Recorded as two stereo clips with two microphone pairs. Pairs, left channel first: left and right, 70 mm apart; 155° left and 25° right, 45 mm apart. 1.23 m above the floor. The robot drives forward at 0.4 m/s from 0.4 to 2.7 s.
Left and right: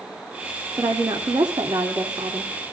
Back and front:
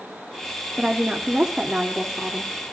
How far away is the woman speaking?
About 2.5 m.